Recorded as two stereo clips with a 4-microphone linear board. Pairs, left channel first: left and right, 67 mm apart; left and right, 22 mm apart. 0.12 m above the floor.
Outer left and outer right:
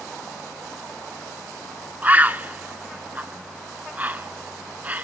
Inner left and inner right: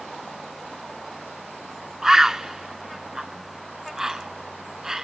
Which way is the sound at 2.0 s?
25° right (ahead or behind).